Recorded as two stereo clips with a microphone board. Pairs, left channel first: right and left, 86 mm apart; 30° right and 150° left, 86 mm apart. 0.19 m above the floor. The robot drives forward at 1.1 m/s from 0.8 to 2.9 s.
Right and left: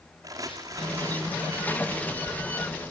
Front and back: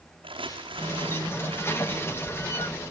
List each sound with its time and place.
0.2 s crumpling: 140° left, 4.5 m; by 2.4 s 150° left, 6 m